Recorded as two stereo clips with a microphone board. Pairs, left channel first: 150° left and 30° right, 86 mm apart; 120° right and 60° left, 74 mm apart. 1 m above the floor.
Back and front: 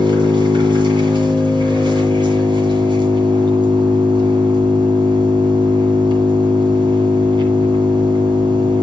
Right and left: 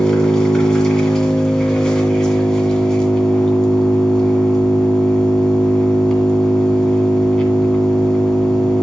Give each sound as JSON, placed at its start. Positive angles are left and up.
{"t": 0.0, "sound": "an engine running", "azimuth_deg": -40, "distance_m": 2.0}